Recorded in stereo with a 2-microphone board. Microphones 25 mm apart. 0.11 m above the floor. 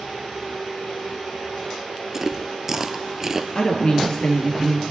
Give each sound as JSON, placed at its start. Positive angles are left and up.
{"t": 2.1, "sound": "chewing", "side_deg": -20, "distance_m": 0.6}
{"t": 3.5, "sound": "a woman speaking", "side_deg": 40, "distance_m": 2.0}